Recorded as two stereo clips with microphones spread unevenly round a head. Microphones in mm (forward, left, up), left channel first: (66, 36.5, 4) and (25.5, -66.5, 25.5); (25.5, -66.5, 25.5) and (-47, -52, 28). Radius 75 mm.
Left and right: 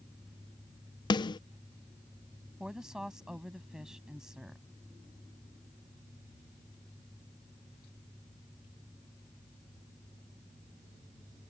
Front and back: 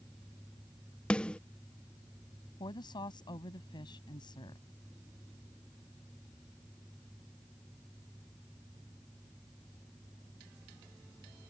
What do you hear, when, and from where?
1.1 s a snare drum: 60° left
2.6 s a woman speaking: 30° right